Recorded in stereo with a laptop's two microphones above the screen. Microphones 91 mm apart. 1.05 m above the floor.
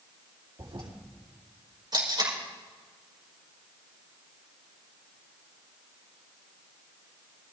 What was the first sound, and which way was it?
A toilet flushing, 65° right (ahead or behind).